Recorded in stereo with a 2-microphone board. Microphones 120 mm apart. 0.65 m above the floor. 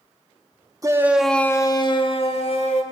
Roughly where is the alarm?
I don't hear an alarm.